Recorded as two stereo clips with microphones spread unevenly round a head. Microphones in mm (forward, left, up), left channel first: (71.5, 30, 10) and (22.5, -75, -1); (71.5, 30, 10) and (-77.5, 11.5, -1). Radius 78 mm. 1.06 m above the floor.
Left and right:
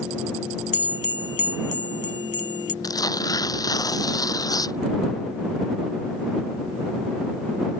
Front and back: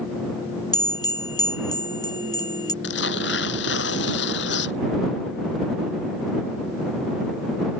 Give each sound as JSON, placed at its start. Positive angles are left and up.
{"t": 0.7, "sound": "a bell", "azimuth_deg": 70}
{"t": 2.8, "sound": "tearing paper", "azimuth_deg": 10}